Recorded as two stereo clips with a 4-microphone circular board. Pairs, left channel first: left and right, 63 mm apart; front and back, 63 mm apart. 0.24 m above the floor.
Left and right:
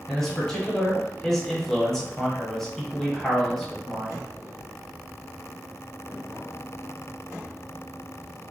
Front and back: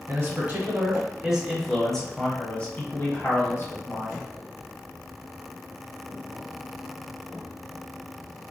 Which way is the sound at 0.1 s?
165° left.